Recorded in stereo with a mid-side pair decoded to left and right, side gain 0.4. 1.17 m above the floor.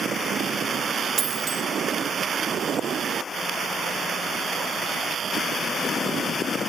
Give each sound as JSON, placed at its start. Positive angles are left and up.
{"t": 1.2, "sound": "a dropped coin", "azimuth_deg": -65, "distance_m": 1.3}